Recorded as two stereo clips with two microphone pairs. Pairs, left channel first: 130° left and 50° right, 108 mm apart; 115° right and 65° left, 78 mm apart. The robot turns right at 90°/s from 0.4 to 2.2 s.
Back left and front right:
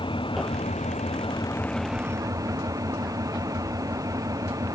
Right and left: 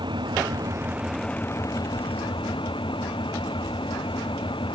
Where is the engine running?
90° left; by 4.8 s 110° right.